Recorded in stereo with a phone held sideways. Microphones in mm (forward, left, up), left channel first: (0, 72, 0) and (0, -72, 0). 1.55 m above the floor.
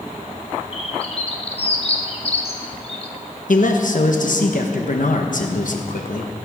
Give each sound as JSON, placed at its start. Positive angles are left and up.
{"t": 0.7, "sound": "a bird", "side_deg": 45, "distance_m": 1.5}
{"t": 3.5, "sound": "a man speaking", "side_deg": 65, "distance_m": 1.3}